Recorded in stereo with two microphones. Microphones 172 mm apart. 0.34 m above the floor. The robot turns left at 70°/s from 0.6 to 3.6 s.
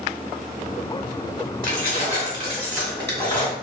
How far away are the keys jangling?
About 1.5 m.